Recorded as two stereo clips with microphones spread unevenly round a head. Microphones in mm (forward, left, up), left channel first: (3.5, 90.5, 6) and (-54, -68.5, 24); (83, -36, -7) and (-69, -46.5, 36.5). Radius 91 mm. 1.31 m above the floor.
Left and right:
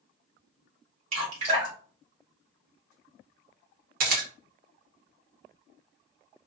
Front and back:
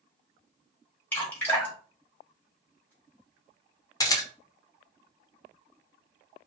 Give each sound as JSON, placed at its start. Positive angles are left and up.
{"t": 1.1, "sound": "dripping", "azimuth_deg": -90, "distance_m": 1.3}
{"t": 4.0, "sound": "a camera shutter", "azimuth_deg": -65, "distance_m": 0.9}